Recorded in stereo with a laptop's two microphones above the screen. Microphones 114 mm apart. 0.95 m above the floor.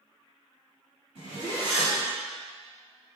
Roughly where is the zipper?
Right.